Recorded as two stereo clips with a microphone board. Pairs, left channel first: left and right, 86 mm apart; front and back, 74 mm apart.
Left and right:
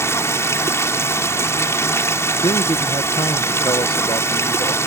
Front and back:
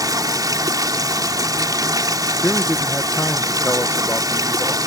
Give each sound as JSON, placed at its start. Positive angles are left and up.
{"t": 0.0, "sound": "running water", "azimuth_deg": 150}
{"t": 2.4, "sound": "a man speaking", "azimuth_deg": 70}